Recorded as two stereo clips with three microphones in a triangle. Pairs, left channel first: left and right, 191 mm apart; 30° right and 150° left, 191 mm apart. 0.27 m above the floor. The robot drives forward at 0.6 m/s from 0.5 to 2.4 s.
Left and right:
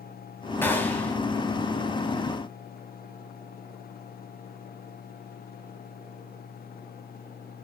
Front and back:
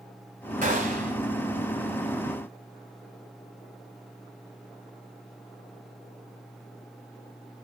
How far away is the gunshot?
About 2 m.